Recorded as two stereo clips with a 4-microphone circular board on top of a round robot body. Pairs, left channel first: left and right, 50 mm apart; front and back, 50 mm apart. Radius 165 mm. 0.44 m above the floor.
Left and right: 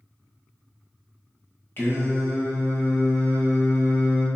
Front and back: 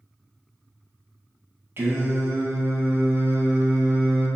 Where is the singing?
135° left, 2.5 m.